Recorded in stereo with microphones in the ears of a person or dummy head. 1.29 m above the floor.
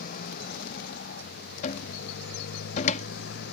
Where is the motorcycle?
50° left (ahead or behind); by 3.5 s 60° left (ahead or behind).